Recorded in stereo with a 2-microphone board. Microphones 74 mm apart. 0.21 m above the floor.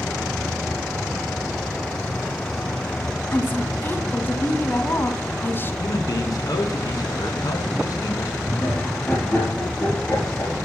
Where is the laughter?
20° left (ahead or behind), 5 m.